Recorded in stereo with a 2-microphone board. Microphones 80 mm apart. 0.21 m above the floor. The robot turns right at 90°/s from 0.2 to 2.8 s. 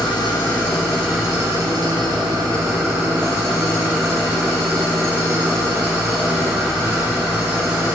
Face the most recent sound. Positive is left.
turn(degrees=-30)